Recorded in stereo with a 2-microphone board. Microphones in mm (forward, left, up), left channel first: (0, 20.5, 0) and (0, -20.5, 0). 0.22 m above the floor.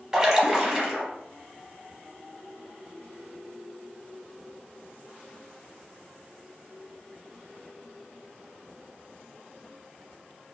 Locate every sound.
0.1 s a splash: 15° right (ahead or behind), 0.9 m